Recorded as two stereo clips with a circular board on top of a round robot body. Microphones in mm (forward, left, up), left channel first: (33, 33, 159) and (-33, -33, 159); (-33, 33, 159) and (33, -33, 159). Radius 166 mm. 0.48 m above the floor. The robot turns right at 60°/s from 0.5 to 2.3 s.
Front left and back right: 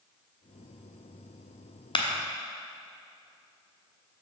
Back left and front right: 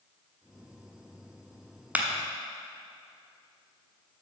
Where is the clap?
25° left, 1.1 m; by 2.1 s 35° left, 1.1 m.